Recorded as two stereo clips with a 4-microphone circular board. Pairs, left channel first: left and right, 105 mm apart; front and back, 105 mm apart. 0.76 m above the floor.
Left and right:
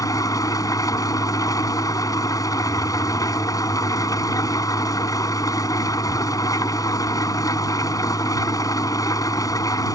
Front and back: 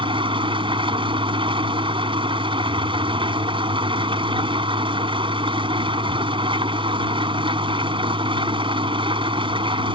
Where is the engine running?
145° left.